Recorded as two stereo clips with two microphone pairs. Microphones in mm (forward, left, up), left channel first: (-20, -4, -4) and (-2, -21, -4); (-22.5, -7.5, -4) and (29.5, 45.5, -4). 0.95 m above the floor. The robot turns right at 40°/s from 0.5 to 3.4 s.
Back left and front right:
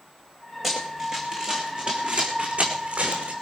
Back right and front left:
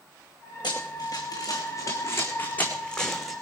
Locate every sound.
0.6 s running footsteps: 125° right, 3.5 m; by 3.3 s 45° right, 3 m